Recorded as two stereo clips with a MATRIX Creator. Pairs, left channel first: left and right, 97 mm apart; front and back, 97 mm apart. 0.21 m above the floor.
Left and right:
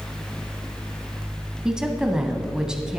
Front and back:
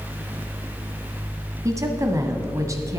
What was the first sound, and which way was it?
A woman speaking, 165° right.